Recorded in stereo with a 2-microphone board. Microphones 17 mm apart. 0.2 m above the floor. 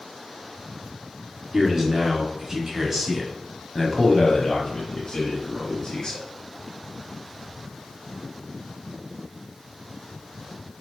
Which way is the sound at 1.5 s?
30° right (ahead or behind).